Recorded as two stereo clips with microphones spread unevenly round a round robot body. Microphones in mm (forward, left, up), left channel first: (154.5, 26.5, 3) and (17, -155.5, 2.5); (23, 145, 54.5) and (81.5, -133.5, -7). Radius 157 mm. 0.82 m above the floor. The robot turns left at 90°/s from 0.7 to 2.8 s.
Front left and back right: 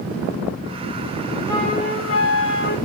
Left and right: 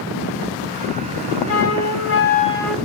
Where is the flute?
135° left, 1.2 m; by 2.8 s 15° left, 1.2 m.